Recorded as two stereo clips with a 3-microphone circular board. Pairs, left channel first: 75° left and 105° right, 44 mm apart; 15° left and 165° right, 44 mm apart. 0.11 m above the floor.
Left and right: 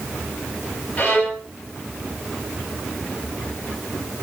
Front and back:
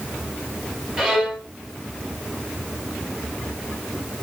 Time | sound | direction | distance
1.0 | a violin | 115° left | 2.5 m